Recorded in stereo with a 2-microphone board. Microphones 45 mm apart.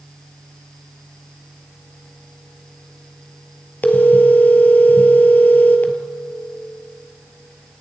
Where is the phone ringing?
40° left (ahead or behind), 1.8 m.